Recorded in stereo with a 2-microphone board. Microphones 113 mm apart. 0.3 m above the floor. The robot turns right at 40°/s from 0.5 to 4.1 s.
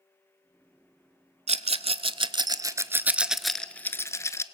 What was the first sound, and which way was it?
A rattle, 75° right (ahead or behind).